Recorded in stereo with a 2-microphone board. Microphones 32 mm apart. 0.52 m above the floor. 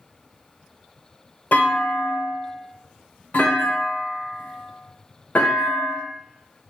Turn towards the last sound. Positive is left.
turn(degrees=60)  # may be behind; listen again after turning